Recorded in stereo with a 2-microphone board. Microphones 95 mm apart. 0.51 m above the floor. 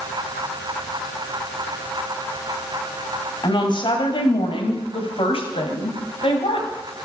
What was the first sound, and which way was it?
A woman speaking, 55° left (ahead or behind).